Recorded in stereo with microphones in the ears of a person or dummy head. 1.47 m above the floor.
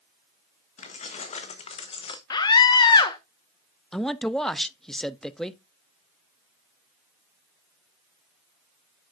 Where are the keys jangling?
45° left (ahead or behind), 1.5 m; by 2.2 s 35° left (ahead or behind), 0.8 m.